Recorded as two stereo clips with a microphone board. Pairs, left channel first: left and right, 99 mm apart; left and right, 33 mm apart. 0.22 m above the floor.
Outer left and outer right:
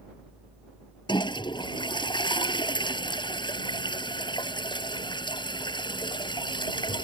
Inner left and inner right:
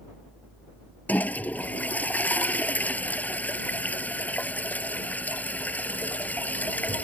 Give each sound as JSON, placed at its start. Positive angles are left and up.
{"t": 1.1, "sound": "a toilet flushing", "side_deg": 50}